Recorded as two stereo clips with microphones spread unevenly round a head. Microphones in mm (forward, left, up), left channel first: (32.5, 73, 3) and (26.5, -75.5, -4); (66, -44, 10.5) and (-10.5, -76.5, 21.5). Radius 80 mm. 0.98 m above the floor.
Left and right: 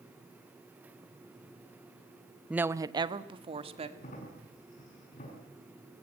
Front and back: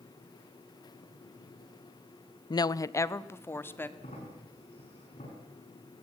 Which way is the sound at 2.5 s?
10° right.